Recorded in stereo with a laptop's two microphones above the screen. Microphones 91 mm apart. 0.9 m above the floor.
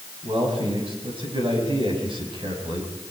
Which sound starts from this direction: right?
A man speaking, at 0.2 s.